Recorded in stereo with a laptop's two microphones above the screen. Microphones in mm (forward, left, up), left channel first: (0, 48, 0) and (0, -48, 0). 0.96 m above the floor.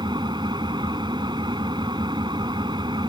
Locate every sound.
0.0 s an engine running: 55° right (ahead or behind)